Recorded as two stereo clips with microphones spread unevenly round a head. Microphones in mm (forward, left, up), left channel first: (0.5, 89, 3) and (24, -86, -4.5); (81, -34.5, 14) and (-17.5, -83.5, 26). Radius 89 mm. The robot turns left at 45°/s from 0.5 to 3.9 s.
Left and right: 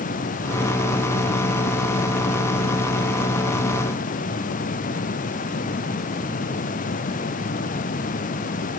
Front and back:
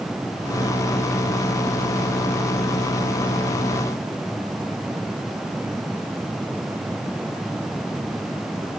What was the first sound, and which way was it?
Only background noise.